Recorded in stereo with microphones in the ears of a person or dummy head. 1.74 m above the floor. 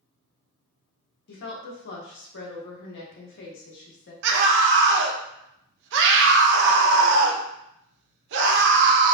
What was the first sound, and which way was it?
A woman speaking, 60° left (ahead or behind).